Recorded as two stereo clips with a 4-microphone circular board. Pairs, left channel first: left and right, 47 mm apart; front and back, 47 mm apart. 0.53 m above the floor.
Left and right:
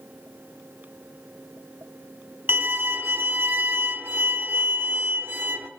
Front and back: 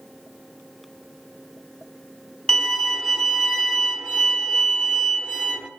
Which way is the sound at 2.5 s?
70° right.